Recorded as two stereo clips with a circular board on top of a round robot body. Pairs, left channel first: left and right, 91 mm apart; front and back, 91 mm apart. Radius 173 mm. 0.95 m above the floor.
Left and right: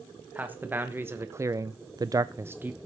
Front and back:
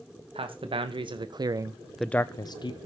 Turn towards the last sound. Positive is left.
turn(degrees=-20)